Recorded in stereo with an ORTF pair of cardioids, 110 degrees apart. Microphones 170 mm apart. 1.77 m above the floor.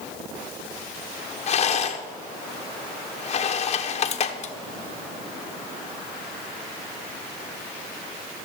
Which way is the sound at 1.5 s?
40° left.